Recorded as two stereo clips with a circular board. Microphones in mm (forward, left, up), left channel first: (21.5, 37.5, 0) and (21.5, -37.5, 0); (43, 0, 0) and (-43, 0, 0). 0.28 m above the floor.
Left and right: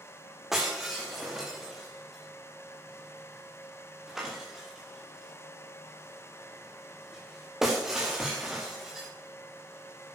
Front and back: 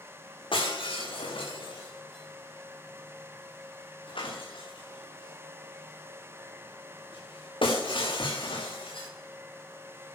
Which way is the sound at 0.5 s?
5° right.